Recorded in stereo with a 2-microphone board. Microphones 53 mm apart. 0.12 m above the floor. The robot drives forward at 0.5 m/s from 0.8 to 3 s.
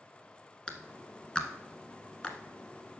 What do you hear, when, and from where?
0.7 s a clap: 15° left (ahead or behind), 1.1 m